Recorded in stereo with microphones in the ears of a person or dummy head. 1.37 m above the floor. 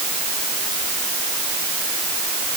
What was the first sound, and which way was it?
Only background noise.